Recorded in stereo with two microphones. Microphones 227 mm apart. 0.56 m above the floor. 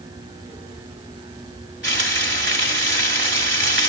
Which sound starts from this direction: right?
Frying, at 1.8 s.